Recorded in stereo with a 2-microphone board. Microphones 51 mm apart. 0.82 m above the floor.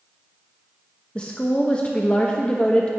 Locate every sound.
1.1 s a woman speaking: 25° left (ahead or behind), 0.8 m